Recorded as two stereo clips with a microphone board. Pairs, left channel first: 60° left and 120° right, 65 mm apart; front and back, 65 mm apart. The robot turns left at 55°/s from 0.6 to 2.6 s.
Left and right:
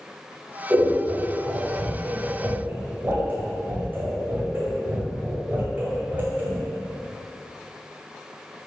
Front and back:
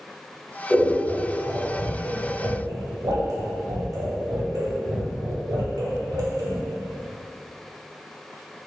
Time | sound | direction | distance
0.7 | scissors | 75° right | 1.7 m